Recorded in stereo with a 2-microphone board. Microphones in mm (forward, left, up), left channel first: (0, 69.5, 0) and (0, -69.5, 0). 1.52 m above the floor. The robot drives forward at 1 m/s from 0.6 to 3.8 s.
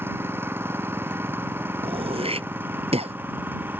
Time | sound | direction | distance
0.0 | an engine running | 15° right (ahead or behind) | ?
1.8 | throat clearing | 40° right (ahead or behind) | ?